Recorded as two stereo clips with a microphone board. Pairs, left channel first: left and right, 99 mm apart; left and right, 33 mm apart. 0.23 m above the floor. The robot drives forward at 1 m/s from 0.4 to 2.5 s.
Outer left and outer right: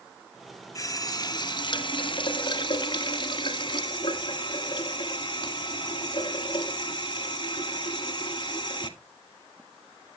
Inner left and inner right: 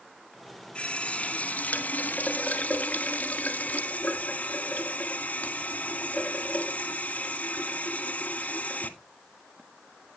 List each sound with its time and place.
0.8 s a running tap: 35° left (ahead or behind), 1.8 m; by 8.9 s 50° left (ahead or behind), 1.3 m